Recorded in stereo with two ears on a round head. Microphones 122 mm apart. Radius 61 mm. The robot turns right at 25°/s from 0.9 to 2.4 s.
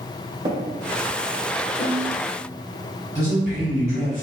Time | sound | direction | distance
0.5 | tapping | 30° right (ahead or behind) | 1.1 m
1.8 | a snare drum | 60° left (ahead or behind) | 1.5 m
3.1 | a man speaking | 5° right (ahead or behind) | 1.9 m